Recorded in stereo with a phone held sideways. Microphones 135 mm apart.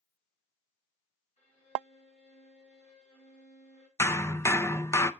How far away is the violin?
About 8 m.